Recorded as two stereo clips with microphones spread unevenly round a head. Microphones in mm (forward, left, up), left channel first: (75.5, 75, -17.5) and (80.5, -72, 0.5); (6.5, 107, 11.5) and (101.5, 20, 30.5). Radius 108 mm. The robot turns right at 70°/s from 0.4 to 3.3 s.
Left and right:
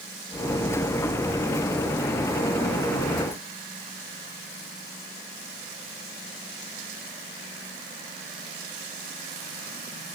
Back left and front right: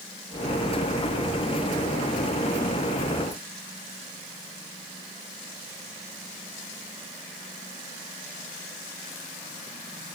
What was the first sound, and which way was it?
Only background noise.